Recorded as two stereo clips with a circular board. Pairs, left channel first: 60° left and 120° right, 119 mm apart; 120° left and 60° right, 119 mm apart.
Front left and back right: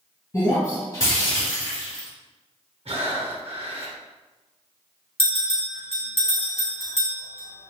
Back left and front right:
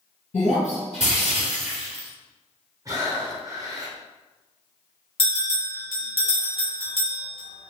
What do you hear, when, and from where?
0.3 s breaking glass: 125° left, 1.7 m
2.9 s breathing: 115° right, 0.7 m
5.2 s a bell: 95° left, 1.3 m